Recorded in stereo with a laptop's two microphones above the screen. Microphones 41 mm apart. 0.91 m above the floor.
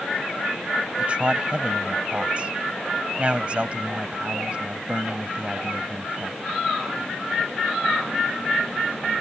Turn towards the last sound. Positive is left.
turn(degrees=-30)  # may be behind; listen again after turning